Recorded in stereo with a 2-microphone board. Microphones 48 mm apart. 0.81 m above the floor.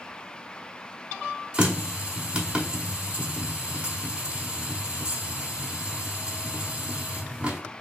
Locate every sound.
1.5 s a running tap: 20° right (ahead or behind), 0.9 m